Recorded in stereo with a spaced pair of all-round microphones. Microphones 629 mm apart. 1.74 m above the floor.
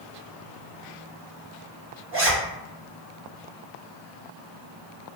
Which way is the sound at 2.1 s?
20° right (ahead or behind).